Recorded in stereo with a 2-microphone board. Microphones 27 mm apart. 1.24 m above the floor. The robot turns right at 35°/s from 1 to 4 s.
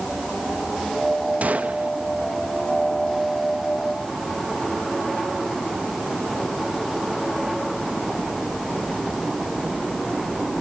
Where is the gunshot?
70° right (ahead or behind), 0.9 m; by 1.9 s 60° right (ahead or behind), 0.9 m.